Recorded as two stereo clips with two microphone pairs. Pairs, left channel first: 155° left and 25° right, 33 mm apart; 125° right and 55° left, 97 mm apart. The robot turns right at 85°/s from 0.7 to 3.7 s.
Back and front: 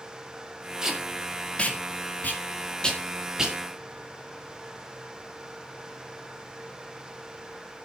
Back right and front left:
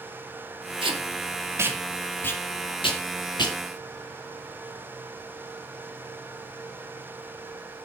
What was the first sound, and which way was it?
Tape being pulled, 45° left.